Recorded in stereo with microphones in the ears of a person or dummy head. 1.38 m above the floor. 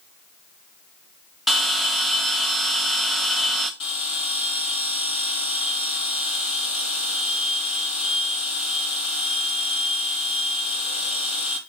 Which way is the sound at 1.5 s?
Centre (ahead or behind).